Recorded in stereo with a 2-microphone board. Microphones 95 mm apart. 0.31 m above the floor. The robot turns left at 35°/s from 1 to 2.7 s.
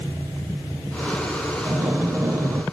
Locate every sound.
1.6 s breathing: 25° right (ahead or behind), 0.5 m; by 2.6 s 30° right (ahead or behind), 0.5 m